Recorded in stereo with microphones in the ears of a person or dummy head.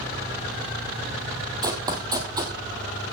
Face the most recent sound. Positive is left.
turn(degrees=-20)  # may be behind; listen again after turning